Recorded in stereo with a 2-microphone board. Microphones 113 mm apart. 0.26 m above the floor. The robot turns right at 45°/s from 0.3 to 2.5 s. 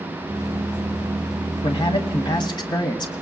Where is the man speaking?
85° left, 1.5 m; by 3.1 s 125° left, 1.5 m.